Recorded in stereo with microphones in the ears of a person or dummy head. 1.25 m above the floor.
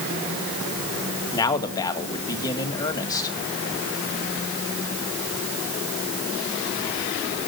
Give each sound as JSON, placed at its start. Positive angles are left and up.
{"t": 1.3, "sound": "a man speaking", "side_deg": 20, "distance_m": 2.0}